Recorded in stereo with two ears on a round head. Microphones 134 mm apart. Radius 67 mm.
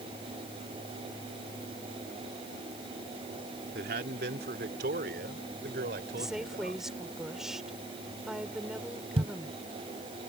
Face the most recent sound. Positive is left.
turn(degrees=-45)  # may be behind; listen again after turning